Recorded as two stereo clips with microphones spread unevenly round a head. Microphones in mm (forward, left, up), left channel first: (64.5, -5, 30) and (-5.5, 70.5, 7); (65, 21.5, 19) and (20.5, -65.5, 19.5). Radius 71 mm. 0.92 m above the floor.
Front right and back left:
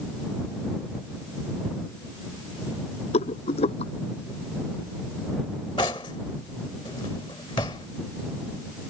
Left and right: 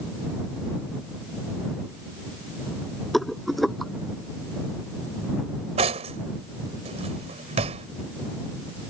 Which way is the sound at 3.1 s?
25° right.